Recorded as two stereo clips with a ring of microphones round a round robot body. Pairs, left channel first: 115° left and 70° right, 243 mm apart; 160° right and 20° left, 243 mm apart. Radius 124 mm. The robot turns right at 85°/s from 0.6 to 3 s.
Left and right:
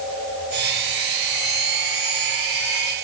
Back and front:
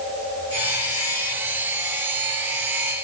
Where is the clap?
I don't hear a clap.